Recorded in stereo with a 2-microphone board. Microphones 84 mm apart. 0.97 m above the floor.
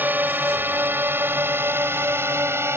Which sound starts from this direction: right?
A drone, at 0.0 s.